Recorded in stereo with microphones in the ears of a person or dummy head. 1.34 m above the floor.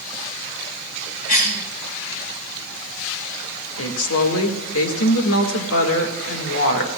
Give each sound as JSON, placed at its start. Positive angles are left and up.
{"t": 1.3, "sound": "a cough", "side_deg": 45, "distance_m": 2.5}
{"t": 3.8, "sound": "a woman speaking", "side_deg": 80, "distance_m": 1.7}